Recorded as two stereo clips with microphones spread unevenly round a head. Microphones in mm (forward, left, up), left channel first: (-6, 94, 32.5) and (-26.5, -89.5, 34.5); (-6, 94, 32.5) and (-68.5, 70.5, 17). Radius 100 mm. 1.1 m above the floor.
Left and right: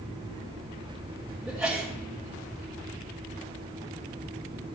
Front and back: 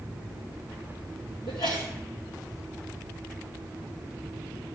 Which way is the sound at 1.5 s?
10° right.